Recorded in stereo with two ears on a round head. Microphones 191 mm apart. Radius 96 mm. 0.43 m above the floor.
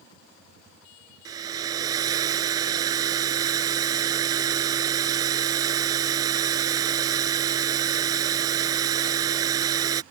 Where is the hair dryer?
20° right (ahead or behind).